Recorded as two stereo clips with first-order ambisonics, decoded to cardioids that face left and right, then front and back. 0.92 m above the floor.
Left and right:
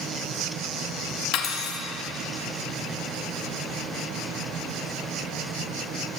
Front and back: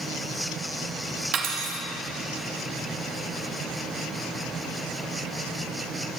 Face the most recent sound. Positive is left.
turn(degrees=135)